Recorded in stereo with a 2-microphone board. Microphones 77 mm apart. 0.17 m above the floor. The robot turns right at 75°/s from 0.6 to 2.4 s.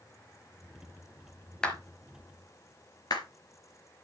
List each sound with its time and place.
1.6 s a clap: 10° left (ahead or behind), 2.5 m; by 3.2 s 60° left (ahead or behind), 2.5 m